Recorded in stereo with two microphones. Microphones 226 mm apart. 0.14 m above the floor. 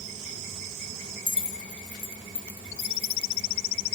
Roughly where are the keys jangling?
Left.